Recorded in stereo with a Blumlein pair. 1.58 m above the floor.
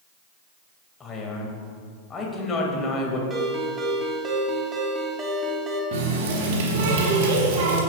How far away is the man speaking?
About 2.5 m.